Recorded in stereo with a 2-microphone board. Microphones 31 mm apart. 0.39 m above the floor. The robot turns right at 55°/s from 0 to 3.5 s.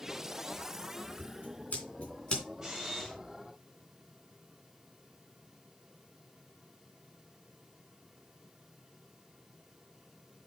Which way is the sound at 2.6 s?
20° right.